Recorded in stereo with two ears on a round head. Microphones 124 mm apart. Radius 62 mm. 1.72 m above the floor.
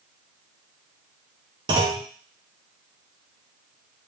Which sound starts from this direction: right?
A clunk, at 1.7 s.